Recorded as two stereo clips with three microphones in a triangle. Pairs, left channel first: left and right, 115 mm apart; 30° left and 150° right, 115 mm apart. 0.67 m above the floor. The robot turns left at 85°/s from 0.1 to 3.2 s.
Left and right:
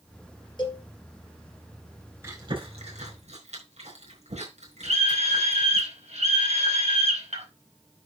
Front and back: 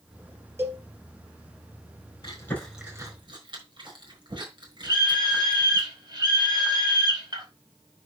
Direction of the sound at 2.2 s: 20° right.